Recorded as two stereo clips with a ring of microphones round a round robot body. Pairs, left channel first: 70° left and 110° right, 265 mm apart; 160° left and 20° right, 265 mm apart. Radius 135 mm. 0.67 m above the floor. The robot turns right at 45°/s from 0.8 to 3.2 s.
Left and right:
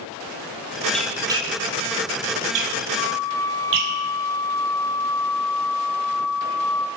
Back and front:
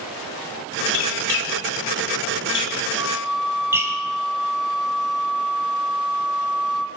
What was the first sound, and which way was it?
A squeak, 155° left.